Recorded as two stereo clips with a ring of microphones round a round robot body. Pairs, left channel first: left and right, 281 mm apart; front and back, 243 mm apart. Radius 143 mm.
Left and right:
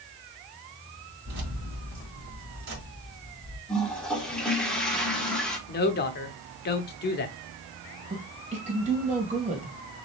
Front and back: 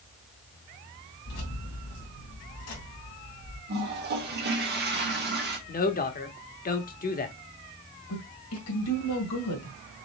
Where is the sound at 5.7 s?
45° left, 1.0 m.